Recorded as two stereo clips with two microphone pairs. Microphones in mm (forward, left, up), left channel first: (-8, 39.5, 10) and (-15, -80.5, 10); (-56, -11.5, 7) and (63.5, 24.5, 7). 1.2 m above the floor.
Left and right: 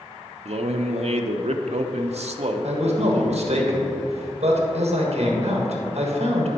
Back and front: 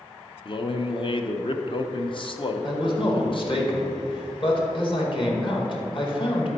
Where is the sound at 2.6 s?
120° right, 1.6 m.